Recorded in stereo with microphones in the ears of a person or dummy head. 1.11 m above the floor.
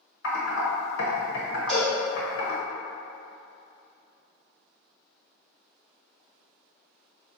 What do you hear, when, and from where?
0.2 s typing on a keyboard: 80° left, 0.9 m
1.7 s a cowbell: 10° left (ahead or behind), 1.4 m